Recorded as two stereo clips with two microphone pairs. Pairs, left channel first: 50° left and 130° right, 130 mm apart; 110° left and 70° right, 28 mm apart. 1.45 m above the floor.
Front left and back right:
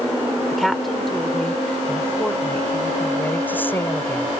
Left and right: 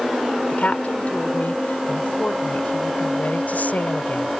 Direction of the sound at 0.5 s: 140° left.